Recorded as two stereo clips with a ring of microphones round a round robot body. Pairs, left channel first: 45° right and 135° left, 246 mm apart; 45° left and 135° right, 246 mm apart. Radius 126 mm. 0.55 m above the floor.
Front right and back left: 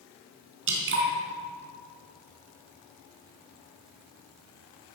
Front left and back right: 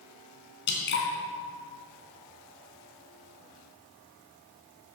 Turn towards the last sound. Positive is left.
turn(degrees=95)